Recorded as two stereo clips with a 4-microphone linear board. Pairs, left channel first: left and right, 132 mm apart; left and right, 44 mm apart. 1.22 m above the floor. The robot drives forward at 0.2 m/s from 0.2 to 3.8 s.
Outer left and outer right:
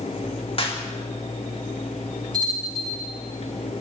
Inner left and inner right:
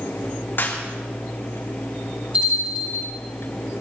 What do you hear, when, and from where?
0.6 s a clap: 45° left (ahead or behind), 3 m
2.3 s a bell: 35° right (ahead or behind), 9.5 m